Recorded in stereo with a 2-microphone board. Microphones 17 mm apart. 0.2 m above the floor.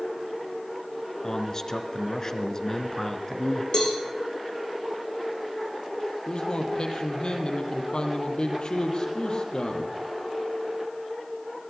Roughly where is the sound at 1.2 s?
Left.